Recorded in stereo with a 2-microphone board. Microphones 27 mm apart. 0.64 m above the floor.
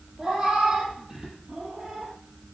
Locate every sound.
0.2 s a cat meowing: 30° right (ahead or behind), 5 m; by 2.1 s 25° right (ahead or behind), 4 m